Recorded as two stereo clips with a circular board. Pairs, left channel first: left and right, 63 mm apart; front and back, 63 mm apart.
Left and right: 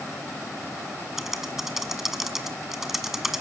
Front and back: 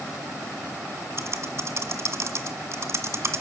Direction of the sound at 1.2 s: 175° right.